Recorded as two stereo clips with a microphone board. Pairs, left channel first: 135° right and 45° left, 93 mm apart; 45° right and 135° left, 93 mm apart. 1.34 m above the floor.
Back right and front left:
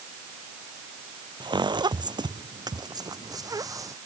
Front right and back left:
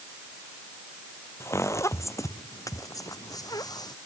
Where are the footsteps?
15° left; by 4.0 s 5° right.